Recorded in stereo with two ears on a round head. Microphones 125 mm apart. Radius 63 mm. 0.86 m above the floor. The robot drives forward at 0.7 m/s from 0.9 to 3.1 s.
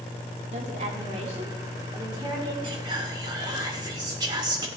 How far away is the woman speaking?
About 2 m.